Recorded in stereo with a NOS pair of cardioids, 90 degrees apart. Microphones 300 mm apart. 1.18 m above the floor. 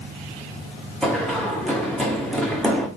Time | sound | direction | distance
1.0 | running footsteps | straight ahead | 4 m